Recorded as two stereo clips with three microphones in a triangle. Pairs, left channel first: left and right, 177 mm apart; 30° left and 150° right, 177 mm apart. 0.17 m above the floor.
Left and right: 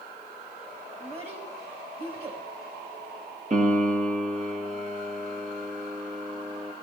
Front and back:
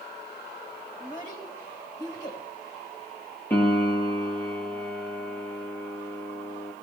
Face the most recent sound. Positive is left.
turn(degrees=-50)